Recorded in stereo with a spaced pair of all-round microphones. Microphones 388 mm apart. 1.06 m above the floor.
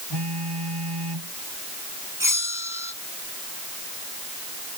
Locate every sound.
0.1 s a phone buzzing: 90° right
2.2 s a bell: 55° right (ahead or behind)